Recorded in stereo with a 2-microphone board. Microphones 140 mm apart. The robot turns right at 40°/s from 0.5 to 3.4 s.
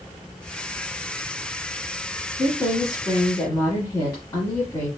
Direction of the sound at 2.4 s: 85° left.